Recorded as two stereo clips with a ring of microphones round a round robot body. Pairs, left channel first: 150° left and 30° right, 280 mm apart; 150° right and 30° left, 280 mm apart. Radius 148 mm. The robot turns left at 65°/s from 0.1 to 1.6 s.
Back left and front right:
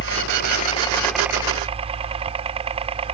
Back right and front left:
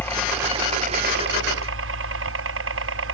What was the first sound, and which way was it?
A helicopter, 130° left.